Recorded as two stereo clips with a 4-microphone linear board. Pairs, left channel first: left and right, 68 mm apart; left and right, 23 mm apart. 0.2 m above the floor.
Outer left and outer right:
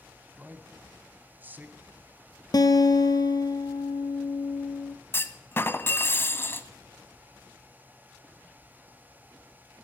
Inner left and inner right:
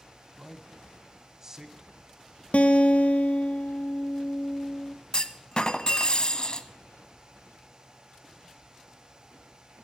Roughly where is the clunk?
Left.